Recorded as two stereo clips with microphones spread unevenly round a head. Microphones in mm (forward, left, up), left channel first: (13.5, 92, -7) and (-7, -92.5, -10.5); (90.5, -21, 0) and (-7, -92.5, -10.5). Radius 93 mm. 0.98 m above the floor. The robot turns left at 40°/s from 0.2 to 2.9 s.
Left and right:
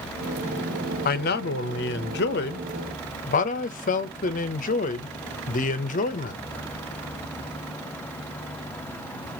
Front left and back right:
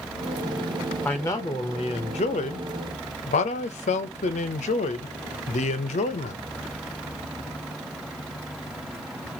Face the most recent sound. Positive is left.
turn(degrees=45)